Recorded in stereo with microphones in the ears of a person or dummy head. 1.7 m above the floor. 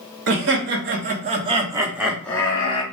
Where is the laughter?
65° right (ahead or behind), 1.0 m; by 2.8 s 25° left (ahead or behind), 0.8 m.